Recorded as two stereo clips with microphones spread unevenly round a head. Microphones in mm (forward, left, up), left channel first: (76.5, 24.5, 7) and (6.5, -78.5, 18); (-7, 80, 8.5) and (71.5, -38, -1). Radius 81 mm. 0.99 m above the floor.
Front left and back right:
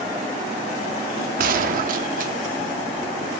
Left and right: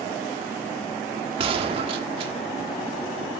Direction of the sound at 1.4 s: 120° right.